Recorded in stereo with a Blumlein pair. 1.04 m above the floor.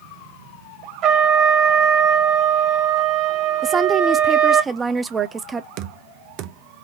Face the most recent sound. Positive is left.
turn(degrees=-40)